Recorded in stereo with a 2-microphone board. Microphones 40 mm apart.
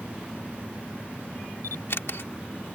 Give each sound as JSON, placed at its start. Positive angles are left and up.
{"t": 1.6, "sound": "a camera shutter", "side_deg": 65}